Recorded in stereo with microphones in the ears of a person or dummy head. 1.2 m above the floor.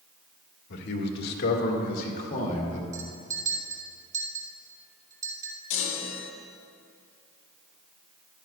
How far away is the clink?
About 1.9 m.